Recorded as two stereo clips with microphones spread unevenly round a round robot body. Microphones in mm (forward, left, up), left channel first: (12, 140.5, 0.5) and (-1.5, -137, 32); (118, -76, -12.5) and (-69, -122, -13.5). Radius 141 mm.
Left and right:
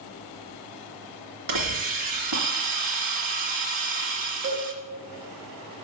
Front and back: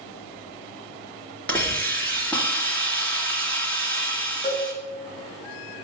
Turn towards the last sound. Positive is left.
turn(degrees=-55)